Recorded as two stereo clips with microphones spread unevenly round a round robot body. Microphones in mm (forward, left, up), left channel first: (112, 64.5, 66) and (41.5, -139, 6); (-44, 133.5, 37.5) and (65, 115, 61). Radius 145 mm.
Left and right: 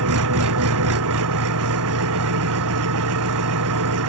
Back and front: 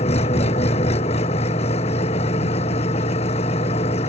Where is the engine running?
135° right.